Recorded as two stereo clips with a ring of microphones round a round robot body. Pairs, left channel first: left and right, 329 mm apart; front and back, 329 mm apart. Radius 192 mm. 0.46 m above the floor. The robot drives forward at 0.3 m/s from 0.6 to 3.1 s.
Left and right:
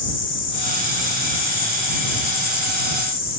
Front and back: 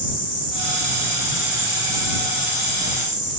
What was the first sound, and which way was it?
An insect, 35° left.